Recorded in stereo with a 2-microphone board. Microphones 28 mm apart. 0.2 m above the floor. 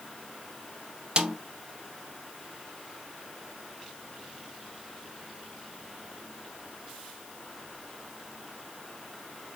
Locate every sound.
1.2 s a snare drum: 30° right (ahead or behind), 0.8 m